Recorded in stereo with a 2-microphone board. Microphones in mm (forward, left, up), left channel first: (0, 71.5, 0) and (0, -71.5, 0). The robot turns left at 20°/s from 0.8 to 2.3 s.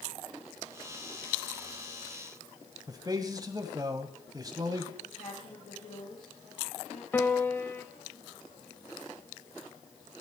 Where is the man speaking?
30° right (ahead or behind), 1.2 m.